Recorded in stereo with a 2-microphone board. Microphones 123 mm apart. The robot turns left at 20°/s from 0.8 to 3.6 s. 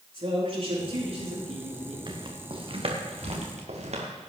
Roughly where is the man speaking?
Right.